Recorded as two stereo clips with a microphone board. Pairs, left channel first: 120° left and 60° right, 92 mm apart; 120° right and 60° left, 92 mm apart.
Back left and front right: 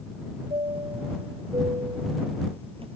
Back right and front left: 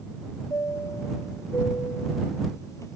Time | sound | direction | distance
0.5 | a chime | 65° right | ?